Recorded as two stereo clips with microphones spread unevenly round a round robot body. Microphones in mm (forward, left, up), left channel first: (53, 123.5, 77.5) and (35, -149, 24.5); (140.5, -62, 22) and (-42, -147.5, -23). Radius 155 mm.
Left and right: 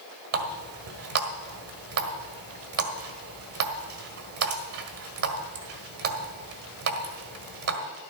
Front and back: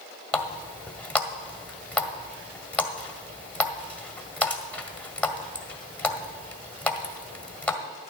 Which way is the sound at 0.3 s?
60° right.